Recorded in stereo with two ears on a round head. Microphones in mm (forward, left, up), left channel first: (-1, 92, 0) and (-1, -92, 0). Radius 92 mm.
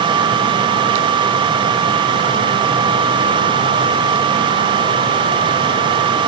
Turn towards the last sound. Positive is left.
No sound to turn to.